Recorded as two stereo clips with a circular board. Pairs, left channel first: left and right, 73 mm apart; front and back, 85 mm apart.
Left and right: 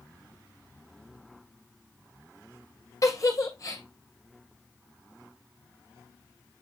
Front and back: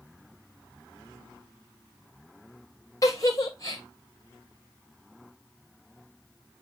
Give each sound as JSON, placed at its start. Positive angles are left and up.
{"t": 3.0, "sound": "a giggle", "azimuth_deg": 50, "distance_m": 1.6}